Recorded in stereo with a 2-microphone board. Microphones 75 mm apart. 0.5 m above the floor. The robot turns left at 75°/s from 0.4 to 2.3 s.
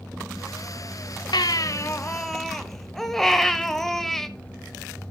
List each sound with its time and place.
1.3 s a baby crying: 75° left, 0.9 m; by 4.3 s 5° left, 0.9 m